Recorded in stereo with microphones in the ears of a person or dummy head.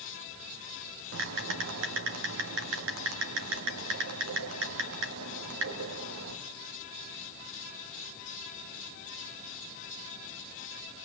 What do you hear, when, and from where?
1.1 s typing on a keyboard: 70° right (ahead or behind), 3 m